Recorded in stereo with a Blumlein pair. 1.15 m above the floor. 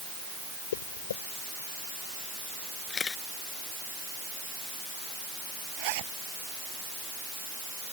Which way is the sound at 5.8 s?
45° right.